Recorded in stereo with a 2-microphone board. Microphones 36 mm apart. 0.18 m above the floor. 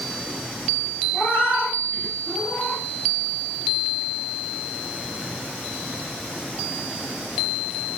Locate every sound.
1.1 s a cat meowing: 70° left (ahead or behind), 1.9 m; by 2.8 s 50° left (ahead or behind), 1.2 m